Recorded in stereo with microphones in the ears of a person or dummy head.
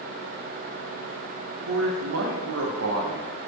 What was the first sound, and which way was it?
A man speaking, 75° right (ahead or behind).